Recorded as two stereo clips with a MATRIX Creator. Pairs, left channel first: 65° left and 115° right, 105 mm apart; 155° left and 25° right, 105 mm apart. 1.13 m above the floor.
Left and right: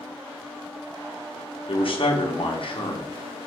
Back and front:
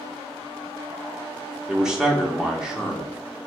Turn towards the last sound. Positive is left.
turn(degrees=60)